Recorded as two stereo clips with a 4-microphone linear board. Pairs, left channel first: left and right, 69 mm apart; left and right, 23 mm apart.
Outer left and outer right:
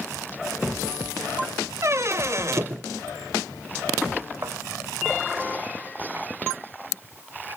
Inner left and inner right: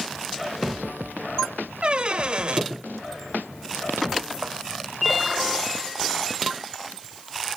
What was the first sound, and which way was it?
A squeak, 45° right (ahead or behind).